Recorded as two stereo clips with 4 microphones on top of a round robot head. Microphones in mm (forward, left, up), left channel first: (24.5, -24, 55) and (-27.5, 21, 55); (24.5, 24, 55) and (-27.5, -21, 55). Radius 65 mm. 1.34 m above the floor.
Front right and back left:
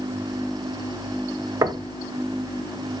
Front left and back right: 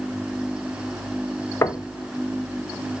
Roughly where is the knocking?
Left.